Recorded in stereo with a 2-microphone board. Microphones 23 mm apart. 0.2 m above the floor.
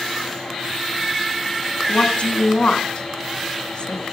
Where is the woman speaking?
55° left (ahead or behind), 1.7 m.